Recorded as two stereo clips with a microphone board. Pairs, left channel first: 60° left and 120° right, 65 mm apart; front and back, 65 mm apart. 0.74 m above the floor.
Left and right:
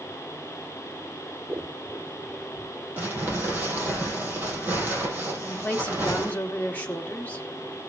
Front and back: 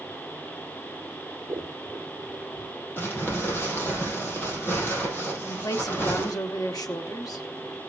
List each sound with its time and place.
1.5 s scissors: 175° right, 0.5 m
3.0 s crumpling: 60° right, 5 m
5.5 s a woman speaking: 5° right, 1.9 m